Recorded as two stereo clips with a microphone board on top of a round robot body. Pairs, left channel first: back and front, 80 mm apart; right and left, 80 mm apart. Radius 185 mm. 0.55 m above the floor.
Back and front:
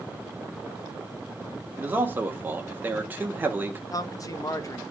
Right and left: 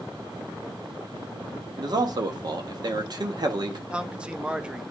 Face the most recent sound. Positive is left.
turn(degrees=160)